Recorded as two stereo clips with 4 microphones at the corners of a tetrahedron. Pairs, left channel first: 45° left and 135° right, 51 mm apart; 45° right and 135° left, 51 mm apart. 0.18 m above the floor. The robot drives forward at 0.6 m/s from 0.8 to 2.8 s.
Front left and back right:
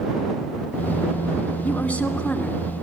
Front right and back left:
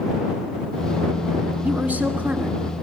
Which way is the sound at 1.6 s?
90° left.